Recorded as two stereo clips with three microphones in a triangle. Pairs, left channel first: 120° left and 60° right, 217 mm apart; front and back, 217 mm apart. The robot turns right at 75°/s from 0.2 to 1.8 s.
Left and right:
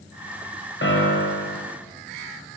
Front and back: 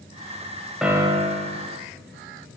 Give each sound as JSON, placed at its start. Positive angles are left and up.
{"t": 0.8, "sound": "a piano", "azimuth_deg": 90, "distance_m": 0.8}